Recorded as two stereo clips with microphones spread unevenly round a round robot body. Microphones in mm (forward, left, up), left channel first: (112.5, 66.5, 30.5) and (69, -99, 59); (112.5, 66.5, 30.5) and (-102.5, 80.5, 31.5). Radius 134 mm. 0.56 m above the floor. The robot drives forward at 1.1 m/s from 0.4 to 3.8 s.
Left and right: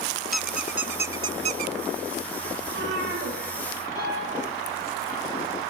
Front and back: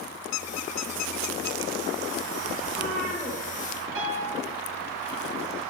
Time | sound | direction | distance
0.3 | a squeak | 20° right | 1.5 m
2.6 | a cat meowing | 90° right | 8.5 m
4.0 | a piano | 150° left | 10 m